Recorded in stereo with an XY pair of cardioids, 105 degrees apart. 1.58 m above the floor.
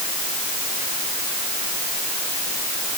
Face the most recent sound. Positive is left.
No sound to turn to.